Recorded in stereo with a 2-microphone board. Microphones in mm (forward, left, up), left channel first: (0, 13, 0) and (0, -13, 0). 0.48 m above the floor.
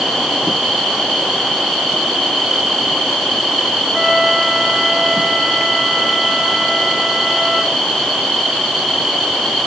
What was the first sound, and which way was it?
A flute, 5° right (ahead or behind).